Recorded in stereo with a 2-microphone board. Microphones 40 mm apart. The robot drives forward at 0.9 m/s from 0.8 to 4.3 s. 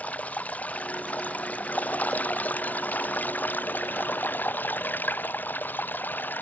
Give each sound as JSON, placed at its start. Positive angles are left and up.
{"t": 0.0, "sound": "running water", "side_deg": 40}